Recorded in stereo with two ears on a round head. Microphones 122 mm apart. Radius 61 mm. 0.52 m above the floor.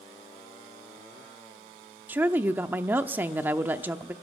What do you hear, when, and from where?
2.1 s a woman speaking: 15° right (ahead or behind), 0.6 m